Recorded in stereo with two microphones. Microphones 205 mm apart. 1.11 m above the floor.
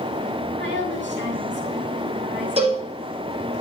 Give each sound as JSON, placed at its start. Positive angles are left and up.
{"t": 0.6, "sound": "a woman speaking", "side_deg": -60, "distance_m": 6.5}
{"t": 2.6, "sound": "a cowbell", "side_deg": -30, "distance_m": 5.5}